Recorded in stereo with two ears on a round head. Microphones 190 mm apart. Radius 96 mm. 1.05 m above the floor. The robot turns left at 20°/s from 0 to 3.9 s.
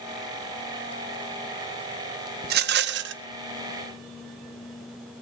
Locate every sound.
2.4 s a rattle: 45° right (ahead or behind), 0.5 m; by 3.2 s 55° right (ahead or behind), 0.5 m